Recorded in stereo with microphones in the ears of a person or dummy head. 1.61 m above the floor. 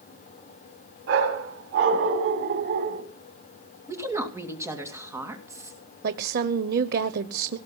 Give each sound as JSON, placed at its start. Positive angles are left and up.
{"t": 1.1, "sound": "a dog barking", "side_deg": -65, "distance_m": 4.0}
{"t": 3.9, "sound": "a woman speaking", "side_deg": -20, "distance_m": 2.5}
{"t": 6.0, "sound": "a woman speaking", "side_deg": -50, "distance_m": 0.9}